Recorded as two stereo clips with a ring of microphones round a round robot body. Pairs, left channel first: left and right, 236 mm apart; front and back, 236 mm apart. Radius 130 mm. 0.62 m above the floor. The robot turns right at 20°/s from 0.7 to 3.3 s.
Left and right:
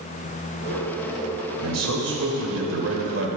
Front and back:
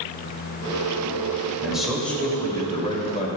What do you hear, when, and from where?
1.6 s a man speaking: 95° right, 3 m; by 3.3 s 60° right, 3 m